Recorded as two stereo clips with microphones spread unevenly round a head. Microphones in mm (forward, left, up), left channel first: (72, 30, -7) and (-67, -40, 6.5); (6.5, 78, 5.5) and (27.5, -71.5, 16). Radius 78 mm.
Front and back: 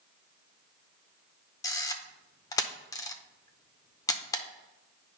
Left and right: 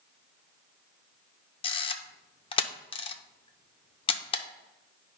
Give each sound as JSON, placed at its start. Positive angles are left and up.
{"t": 1.6, "sound": "a camera shutter", "azimuth_deg": 80, "distance_m": 0.7}